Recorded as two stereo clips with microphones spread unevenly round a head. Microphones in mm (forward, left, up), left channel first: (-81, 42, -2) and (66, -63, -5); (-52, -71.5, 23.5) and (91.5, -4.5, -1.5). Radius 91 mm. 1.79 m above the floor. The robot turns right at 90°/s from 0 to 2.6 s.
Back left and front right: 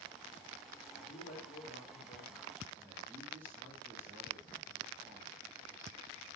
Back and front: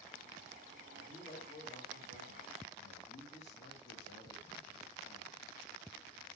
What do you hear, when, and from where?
0.9 s a man speaking: 95° left, 3.5 m; by 5.4 s 115° right, 3.5 m